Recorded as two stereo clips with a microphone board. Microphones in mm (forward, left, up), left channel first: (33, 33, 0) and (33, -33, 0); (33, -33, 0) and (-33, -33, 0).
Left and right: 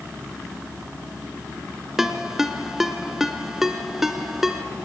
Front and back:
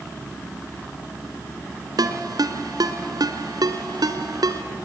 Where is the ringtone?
175° right, 1.5 m.